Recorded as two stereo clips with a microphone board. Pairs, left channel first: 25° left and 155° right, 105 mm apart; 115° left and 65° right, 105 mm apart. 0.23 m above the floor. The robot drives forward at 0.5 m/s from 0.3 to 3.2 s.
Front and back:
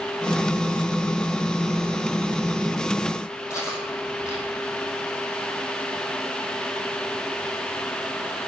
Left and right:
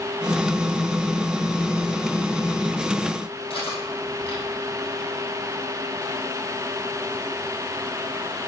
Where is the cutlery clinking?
85° left, 4.5 m.